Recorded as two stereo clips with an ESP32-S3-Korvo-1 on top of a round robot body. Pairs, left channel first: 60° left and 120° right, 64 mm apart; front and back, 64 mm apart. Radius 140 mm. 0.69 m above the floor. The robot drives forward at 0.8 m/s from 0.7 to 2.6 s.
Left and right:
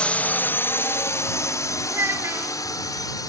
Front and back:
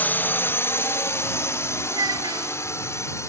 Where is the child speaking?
170° right.